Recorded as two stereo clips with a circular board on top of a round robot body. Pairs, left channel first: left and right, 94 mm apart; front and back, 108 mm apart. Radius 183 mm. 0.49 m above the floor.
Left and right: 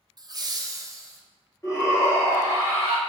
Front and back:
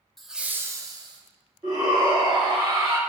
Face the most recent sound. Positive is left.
turn(degrees=145)